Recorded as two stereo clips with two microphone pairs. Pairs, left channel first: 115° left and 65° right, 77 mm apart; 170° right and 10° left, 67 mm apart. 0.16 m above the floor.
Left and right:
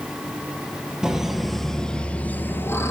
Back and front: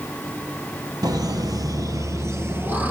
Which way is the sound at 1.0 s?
20° left.